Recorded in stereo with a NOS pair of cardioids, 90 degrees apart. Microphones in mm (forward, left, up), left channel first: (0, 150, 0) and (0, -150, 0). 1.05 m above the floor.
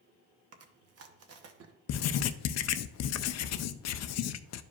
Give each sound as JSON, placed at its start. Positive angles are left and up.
{"t": 0.5, "sound": "chewing", "azimuth_deg": -55, "distance_m": 1.0}
{"t": 1.9, "sound": "writing", "azimuth_deg": 60, "distance_m": 0.5}